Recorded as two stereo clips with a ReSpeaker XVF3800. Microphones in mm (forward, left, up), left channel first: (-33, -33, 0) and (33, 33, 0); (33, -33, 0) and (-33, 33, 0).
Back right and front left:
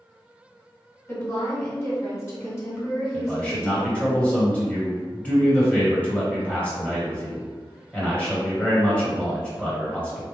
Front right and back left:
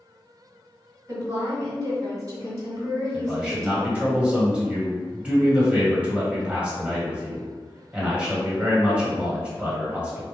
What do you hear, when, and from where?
1.1 s a woman speaking: 175° left, 2.0 m
3.1 s a man speaking: straight behind, 1.4 m